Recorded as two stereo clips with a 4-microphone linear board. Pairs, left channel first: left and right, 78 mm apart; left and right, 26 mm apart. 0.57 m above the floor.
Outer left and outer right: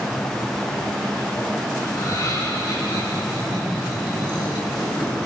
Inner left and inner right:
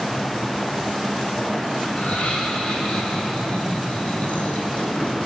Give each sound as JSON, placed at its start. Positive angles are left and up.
{"t": 1.9, "sound": "laughter", "side_deg": 50, "distance_m": 5.5}